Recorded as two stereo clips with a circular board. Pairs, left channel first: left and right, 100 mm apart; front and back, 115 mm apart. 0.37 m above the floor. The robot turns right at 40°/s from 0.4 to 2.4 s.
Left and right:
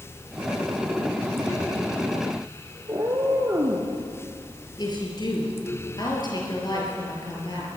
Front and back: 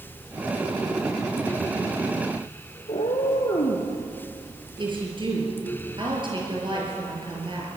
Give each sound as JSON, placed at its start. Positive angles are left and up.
{"t": 2.9, "sound": "a cat meowing", "azimuth_deg": -30, "distance_m": 3.0}
{"t": 4.8, "sound": "a woman speaking", "azimuth_deg": 135, "distance_m": 6.0}